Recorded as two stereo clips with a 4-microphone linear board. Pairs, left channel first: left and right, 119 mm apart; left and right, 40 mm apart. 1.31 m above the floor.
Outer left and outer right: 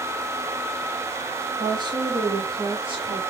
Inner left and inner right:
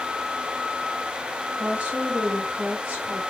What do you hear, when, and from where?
1.6 s a woman speaking: 40° right (ahead or behind), 1.0 m; by 3.2 s 50° right (ahead or behind), 2 m